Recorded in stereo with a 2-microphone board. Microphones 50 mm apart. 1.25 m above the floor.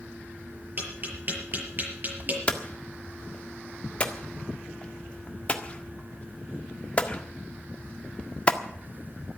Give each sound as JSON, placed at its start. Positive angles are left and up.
{"t": 0.8, "sound": "tapping", "side_deg": -45, "distance_m": 6.5}
{"t": 2.5, "sound": "hammering", "side_deg": 25, "distance_m": 1.6}